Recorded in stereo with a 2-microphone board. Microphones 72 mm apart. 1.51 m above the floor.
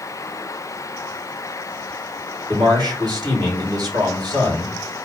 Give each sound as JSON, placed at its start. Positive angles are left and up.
{"t": 2.5, "sound": "a man speaking", "side_deg": -70, "distance_m": 3.0}